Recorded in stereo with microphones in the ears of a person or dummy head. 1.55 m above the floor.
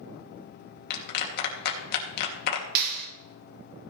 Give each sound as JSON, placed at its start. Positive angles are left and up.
{"t": 0.9, "sound": "a clap", "side_deg": 60, "distance_m": 2.5}
{"t": 2.8, "sound": "a clap", "side_deg": -55, "distance_m": 3.5}